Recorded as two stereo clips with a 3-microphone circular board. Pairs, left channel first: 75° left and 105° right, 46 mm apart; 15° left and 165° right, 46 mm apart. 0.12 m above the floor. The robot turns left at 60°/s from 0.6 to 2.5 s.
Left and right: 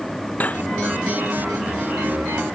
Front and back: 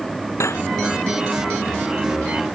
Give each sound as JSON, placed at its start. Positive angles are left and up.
{"t": 0.4, "sound": "cutlery clinking", "azimuth_deg": 20}